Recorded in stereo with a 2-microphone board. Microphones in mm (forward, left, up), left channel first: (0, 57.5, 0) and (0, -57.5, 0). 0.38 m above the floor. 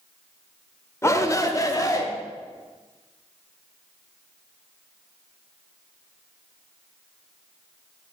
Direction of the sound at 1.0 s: 25° left (ahead or behind).